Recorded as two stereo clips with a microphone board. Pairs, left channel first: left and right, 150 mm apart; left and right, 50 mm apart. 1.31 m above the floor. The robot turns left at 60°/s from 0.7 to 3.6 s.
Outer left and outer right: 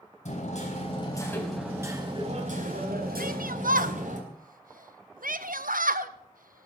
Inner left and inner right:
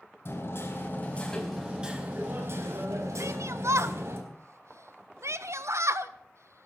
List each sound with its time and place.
0.2 s hammering: 50° left, 4.5 m; by 4.2 s 125° right, 4.5 m
3.2 s a shout: 70° right (ahead or behind), 1.3 m; by 6.7 s 65° right (ahead or behind), 1.3 m